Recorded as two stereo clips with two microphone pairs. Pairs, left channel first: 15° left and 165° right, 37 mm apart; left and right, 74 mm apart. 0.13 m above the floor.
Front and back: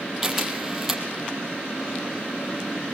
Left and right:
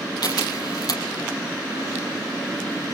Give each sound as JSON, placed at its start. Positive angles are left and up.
{"t": 0.2, "sound": "a camera shutter", "azimuth_deg": 115, "distance_m": 4.5}